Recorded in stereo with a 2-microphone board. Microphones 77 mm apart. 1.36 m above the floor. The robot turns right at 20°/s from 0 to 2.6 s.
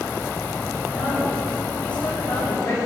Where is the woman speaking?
5° right, 5.5 m; by 2.8 s 30° left, 5.5 m.